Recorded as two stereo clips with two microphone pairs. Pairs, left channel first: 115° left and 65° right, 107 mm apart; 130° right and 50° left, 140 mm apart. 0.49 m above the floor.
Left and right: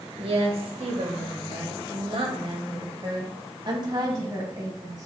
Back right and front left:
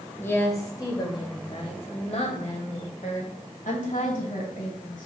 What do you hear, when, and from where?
0.2 s a woman speaking: 55° right, 1.6 m; by 5.1 s 120° right, 3 m